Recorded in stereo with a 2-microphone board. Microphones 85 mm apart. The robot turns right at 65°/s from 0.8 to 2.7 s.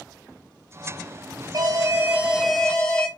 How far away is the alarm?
About 4 m.